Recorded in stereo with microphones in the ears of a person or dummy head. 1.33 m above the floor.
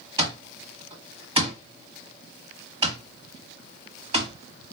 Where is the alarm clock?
30° right (ahead or behind), 1.6 m.